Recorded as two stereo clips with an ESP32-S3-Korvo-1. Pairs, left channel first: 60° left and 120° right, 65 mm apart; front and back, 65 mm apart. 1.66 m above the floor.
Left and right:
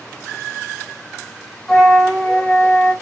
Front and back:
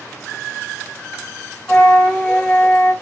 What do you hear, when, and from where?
1.7 s a flute: 5° left, 1.2 m